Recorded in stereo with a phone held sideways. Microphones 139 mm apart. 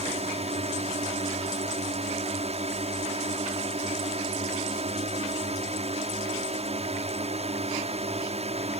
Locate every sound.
0.0 s a drone: 50° right (ahead or behind)